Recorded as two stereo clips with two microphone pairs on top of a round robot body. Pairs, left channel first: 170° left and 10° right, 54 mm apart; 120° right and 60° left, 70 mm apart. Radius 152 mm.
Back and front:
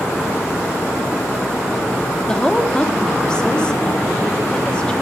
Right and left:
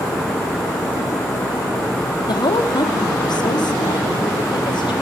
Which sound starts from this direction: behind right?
A woman speaking, at 2.3 s.